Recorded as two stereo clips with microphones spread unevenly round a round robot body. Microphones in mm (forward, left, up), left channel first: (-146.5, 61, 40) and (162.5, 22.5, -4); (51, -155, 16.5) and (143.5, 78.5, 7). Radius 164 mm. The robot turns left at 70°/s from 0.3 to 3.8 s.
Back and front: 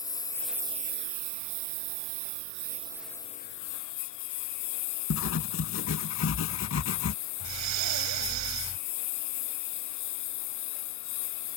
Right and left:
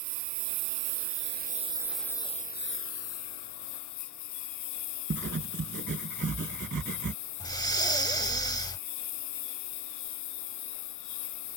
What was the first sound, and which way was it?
A lawn mower, 95° left.